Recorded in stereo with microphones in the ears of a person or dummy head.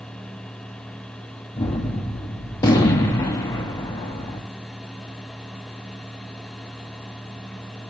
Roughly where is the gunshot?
Centre.